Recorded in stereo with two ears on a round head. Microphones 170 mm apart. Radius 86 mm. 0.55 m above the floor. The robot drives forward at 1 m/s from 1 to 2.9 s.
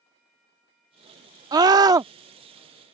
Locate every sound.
1.5 s a scream: 20° right (ahead or behind); by 2.1 s 15° right (ahead or behind)